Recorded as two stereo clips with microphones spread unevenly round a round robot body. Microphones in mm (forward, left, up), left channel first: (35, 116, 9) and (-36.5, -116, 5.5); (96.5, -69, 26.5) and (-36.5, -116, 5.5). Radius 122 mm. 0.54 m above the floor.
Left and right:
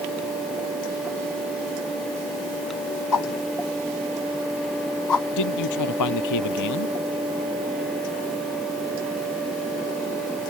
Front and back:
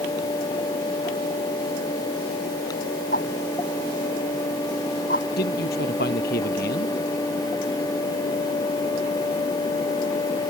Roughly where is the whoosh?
Left.